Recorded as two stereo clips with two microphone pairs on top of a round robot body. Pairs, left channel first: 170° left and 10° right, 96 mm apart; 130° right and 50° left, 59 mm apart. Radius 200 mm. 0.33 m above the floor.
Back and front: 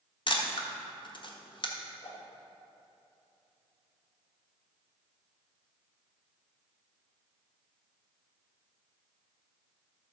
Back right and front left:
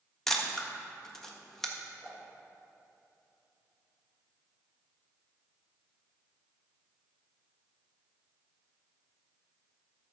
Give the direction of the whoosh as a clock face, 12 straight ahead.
7 o'clock.